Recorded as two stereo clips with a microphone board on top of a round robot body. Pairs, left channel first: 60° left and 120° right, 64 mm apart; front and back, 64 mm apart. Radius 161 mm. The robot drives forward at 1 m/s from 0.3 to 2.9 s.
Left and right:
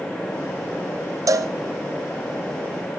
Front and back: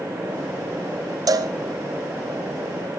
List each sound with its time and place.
1.3 s a cowbell: 155° right, 1.0 m; by 1.5 s 160° right, 1.2 m